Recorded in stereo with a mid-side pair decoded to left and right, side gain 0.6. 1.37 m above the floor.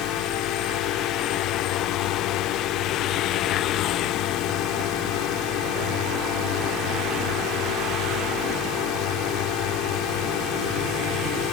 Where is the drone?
70° left.